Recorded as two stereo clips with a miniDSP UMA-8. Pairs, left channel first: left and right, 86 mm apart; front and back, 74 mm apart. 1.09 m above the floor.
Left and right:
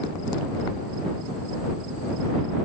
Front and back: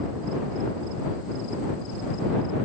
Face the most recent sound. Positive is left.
No sound to turn to.